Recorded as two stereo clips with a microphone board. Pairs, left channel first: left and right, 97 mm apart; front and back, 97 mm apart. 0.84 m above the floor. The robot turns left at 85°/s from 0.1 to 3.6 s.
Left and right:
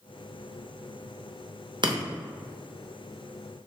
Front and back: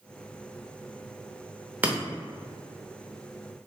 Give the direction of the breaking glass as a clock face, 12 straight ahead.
4 o'clock.